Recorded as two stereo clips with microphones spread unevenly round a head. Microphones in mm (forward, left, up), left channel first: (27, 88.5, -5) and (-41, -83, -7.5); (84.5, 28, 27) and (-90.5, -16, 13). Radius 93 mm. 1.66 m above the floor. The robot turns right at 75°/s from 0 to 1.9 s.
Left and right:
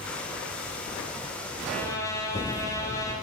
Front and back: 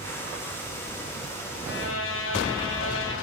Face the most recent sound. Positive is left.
turn(degrees=-5)